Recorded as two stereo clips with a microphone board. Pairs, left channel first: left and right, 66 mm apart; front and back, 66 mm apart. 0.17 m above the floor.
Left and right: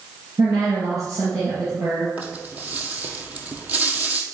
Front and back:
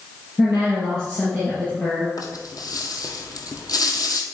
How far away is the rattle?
About 1.3 m.